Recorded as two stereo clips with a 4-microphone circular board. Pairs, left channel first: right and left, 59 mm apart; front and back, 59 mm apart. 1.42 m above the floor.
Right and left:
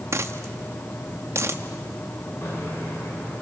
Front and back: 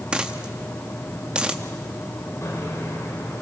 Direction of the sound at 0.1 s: 105° left.